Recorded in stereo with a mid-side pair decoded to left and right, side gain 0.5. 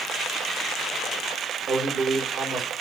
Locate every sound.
1.7 s a man speaking: 40° right, 3.5 m